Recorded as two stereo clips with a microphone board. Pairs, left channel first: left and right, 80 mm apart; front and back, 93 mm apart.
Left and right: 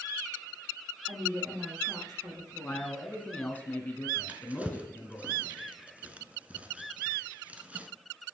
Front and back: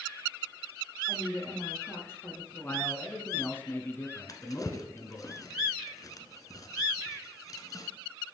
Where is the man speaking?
40° left, 1.2 m.